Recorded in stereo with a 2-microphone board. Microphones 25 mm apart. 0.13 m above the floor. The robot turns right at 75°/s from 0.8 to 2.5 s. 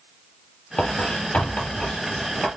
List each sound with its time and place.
0.8 s writing: 45° left (ahead or behind), 2.5 m; by 2.5 s centre (ahead or behind), 2.5 m